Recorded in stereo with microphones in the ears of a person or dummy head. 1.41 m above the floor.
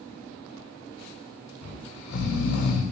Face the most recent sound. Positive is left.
turn(degrees=60)  # may be behind; listen again after turning